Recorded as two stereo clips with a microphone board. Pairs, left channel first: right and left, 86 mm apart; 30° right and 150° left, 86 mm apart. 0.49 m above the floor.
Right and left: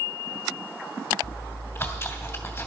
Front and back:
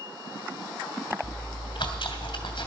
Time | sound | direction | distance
1.2 | chewing | 35° right | 2.5 m